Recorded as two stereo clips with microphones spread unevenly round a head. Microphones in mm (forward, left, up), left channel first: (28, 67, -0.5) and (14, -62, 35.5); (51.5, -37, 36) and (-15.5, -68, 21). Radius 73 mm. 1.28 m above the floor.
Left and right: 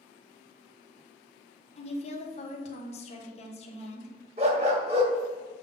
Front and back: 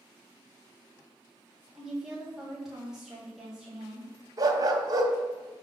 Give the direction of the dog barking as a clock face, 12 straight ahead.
4 o'clock.